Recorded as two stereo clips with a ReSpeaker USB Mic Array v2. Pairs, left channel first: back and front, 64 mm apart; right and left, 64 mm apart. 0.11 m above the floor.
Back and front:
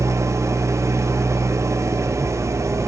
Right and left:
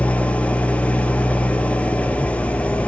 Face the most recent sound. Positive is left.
turn(degrees=-25)